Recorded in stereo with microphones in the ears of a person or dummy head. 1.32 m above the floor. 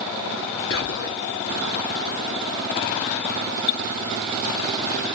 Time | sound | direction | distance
0.7 | whispering | 65° left (ahead or behind) | 0.7 m